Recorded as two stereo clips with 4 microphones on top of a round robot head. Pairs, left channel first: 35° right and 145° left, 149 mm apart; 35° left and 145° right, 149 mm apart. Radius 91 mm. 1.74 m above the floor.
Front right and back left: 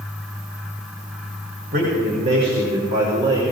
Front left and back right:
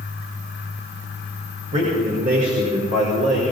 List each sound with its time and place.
1.7 s a man speaking: 175° left, 4.5 m; by 3.4 s 150° right, 4.5 m